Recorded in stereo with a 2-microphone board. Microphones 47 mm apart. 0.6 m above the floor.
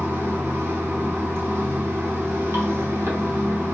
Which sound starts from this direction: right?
Running water, at 0.0 s.